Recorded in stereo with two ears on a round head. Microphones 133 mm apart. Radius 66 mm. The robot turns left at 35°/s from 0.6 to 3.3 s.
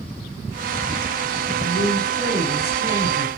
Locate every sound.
1.6 s a woman speaking: 80° left, 3 m; by 3.3 s 20° left, 3 m